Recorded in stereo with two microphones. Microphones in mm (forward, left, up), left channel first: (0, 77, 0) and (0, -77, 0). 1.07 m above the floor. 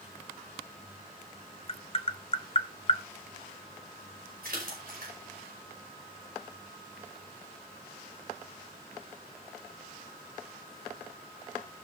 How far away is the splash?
About 5 m.